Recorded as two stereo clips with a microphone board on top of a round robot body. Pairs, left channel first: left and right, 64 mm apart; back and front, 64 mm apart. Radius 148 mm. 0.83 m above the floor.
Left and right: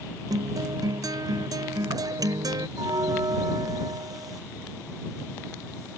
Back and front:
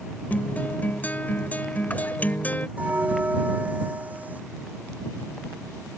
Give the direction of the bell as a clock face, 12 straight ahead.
2 o'clock.